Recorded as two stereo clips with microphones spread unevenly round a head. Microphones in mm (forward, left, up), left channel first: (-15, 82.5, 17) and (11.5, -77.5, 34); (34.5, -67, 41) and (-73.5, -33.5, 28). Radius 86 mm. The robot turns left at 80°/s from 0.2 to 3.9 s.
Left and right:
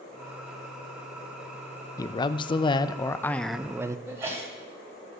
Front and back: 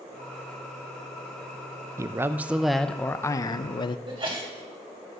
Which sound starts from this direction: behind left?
A man speaking, at 2.0 s.